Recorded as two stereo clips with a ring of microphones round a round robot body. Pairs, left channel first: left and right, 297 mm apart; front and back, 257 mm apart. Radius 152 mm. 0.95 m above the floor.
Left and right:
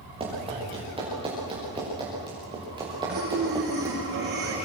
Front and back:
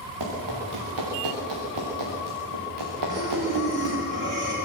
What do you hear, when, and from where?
0.2 s running footsteps: 160° right, 9.5 m; by 4.0 s 165° right, 7 m
3.1 s breathing: 150° right, 9 m